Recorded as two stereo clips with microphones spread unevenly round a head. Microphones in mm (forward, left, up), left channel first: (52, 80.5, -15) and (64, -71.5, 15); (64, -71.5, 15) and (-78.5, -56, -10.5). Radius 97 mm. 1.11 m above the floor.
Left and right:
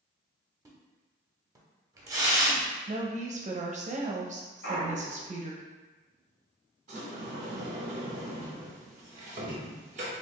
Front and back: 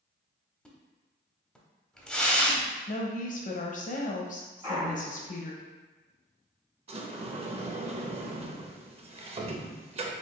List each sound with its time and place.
0.7 s a splash: 70° right, 0.8 m
2.9 s a woman speaking: 40° right, 0.7 m
4.6 s a clunk: 100° left, 1.0 m
6.9 s a sliding door: 135° right, 0.6 m